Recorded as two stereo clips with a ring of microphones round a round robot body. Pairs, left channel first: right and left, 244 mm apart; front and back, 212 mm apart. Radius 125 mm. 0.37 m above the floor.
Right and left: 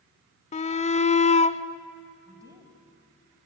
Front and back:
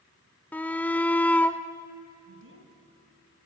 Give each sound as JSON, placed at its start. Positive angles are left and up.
{"t": 0.5, "sound": "a shout", "azimuth_deg": -75, "distance_m": 0.9}
{"t": 2.3, "sound": "a woman speaking", "azimuth_deg": 165, "distance_m": 3.0}